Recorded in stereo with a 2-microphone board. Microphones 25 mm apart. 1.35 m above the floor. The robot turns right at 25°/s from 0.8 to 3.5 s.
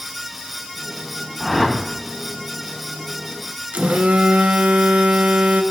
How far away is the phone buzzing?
About 0.9 m.